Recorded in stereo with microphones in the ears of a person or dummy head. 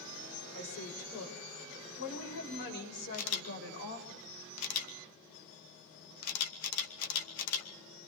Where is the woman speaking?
50° left (ahead or behind), 6.5 m; by 4.1 s 60° left (ahead or behind), 8.5 m.